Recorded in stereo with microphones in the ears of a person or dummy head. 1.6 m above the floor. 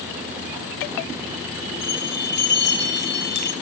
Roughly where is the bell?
Left.